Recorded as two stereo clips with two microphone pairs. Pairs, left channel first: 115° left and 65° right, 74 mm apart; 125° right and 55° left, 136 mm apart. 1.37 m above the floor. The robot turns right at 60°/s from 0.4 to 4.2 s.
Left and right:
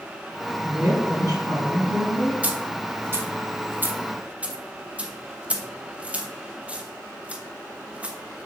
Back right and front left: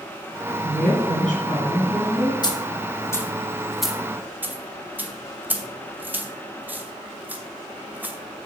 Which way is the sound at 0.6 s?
130° right.